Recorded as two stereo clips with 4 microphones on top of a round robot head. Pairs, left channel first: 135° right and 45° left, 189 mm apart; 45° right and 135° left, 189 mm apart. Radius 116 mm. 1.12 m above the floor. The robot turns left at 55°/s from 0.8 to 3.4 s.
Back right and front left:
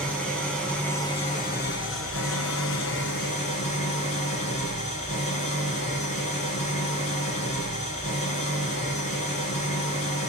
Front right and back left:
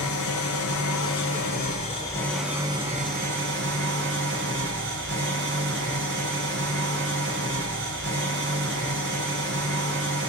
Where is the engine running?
50° right, 2.5 m; by 10.3 s 170° left, 2.5 m.